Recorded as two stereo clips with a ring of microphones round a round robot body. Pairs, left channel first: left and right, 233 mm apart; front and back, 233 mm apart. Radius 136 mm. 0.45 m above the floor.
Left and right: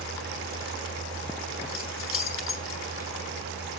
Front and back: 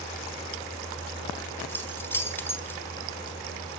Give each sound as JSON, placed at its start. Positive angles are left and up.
{"t": 1.7, "sound": "keys jangling", "azimuth_deg": 80, "distance_m": 1.4}